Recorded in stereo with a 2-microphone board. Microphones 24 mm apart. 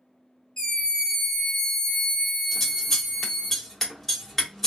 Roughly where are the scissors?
Centre.